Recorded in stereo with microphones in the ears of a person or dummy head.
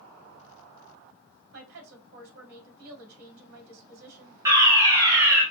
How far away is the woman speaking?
About 3.5 m.